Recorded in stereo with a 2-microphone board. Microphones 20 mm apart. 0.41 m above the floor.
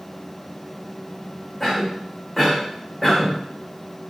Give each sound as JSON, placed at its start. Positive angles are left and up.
{"t": 1.6, "sound": "a cough", "side_deg": 10, "distance_m": 1.5}